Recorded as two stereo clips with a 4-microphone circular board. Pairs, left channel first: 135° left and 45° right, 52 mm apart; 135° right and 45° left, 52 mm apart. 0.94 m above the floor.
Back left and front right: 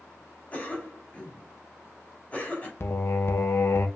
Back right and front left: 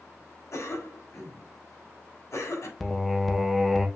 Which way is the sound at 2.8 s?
140° left.